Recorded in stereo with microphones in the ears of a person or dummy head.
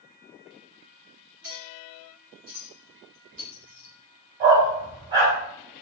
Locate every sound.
1.4 s a clink: 60° right (ahead or behind), 2.0 m
4.4 s a dog barking: 35° right (ahead or behind), 2 m